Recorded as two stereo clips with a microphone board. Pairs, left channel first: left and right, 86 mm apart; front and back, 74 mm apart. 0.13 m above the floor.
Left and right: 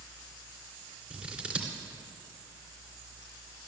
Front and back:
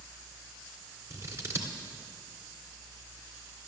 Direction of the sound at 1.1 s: 160° right.